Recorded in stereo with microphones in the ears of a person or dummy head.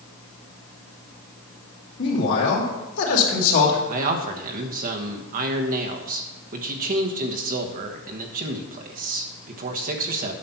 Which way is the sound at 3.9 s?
40° right (ahead or behind).